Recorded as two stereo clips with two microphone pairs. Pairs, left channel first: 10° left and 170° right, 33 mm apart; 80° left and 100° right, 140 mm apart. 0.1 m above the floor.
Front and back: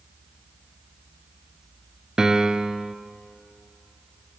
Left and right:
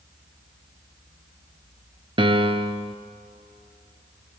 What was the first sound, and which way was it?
A piano, 110° right.